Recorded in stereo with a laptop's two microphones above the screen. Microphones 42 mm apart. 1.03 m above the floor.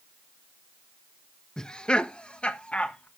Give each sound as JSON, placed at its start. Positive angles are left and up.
{"t": 1.6, "sound": "laughter", "side_deg": 15, "distance_m": 0.7}